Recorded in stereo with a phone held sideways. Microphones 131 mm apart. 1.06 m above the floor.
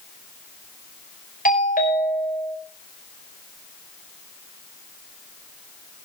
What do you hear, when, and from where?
1.4 s a doorbell: 85° left, 5.5 m